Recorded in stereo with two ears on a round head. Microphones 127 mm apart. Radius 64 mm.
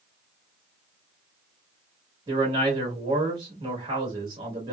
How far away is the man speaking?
About 1.3 m.